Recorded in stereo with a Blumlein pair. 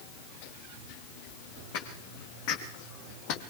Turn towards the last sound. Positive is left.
turn(degrees=40)